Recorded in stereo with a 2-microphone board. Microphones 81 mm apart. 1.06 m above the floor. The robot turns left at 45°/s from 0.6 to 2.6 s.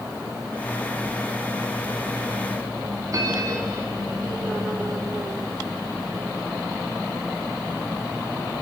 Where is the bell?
45° right (ahead or behind), 3 m.